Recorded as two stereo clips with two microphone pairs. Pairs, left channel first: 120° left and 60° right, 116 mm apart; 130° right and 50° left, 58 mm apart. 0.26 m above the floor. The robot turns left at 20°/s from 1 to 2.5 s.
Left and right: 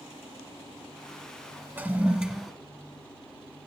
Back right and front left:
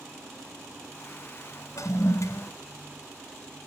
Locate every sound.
1.8 s a toilet flushing: 130° right, 1.0 m; by 2.5 s 145° right, 1.0 m